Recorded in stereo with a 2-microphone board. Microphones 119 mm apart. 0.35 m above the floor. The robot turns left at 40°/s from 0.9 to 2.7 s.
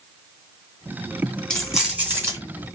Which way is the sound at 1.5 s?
10° left.